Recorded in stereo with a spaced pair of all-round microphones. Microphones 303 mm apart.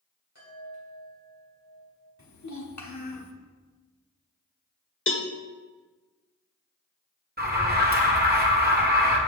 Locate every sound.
0.3 s a chime: 55° left (ahead or behind), 3.5 m
2.2 s a child speaking: 65° left (ahead or behind), 1.3 m
5.1 s a cowbell: 45° left (ahead or behind), 0.6 m
7.4 s an alarm: 30° right (ahead or behind), 1.1 m